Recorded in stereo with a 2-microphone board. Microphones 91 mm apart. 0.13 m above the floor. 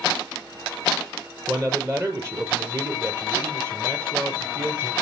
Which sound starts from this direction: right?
A man speaking, at 1.5 s.